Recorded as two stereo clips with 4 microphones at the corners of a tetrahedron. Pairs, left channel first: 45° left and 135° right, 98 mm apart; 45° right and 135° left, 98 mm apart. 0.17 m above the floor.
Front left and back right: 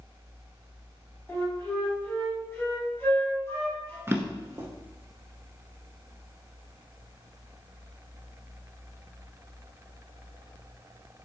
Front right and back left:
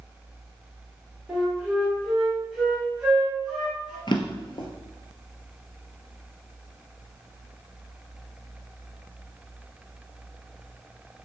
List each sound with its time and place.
1.3 s a flute: 60° left, 1.4 m
4.1 s a drawer: 75° right, 0.6 m